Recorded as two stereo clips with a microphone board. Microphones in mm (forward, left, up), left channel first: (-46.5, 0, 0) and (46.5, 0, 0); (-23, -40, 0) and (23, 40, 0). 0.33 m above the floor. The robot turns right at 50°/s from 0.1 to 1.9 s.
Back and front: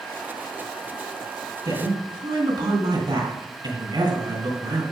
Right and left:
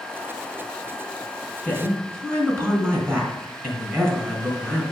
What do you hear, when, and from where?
1.6 s a woman speaking: 15° right, 3 m; by 4.8 s straight ahead, 3 m